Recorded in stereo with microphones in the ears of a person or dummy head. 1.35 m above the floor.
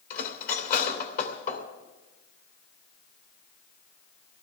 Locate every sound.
0.1 s cutlery clinking: 45° left (ahead or behind), 3 m